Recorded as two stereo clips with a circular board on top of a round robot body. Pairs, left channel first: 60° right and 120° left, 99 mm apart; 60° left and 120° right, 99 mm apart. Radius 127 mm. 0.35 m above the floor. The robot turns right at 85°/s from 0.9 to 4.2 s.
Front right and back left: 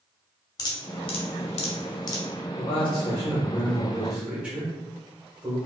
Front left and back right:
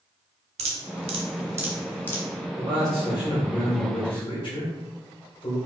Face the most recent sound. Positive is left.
turn(degrees=55)